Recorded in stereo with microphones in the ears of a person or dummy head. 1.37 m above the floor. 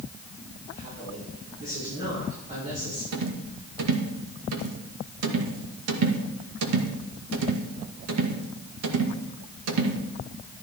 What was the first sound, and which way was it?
A woman speaking, 40° right (ahead or behind).